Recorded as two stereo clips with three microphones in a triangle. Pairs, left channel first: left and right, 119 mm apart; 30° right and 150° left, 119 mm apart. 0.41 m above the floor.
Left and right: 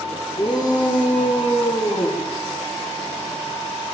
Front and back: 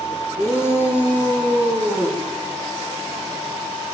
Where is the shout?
40° left, 6.5 m; by 2.2 s 50° left, 7 m.